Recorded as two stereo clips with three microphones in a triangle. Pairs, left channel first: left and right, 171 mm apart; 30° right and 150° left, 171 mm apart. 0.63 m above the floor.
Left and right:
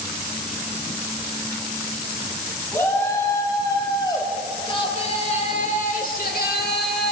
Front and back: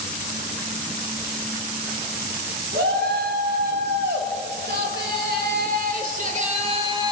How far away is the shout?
About 3.5 m.